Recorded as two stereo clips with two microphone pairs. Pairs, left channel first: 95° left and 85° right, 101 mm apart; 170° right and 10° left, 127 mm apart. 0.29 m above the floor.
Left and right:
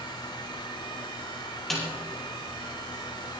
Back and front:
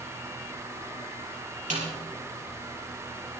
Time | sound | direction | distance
1.7 | a snare drum | 5° left | 5 m